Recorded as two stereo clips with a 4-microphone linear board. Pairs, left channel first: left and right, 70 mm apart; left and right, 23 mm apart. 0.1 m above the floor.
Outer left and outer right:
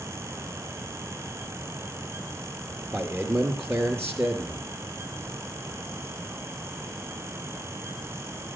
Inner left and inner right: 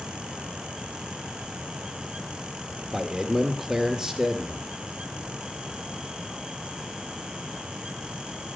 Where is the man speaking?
35° right (ahead or behind), 1.9 m.